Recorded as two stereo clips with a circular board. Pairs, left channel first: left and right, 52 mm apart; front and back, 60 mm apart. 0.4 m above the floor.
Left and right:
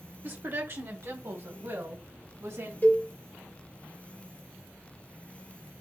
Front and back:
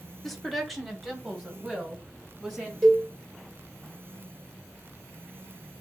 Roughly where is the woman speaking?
Right.